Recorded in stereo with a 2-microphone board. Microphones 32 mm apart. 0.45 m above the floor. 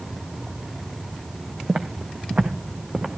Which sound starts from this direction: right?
Footsteps, at 1.7 s.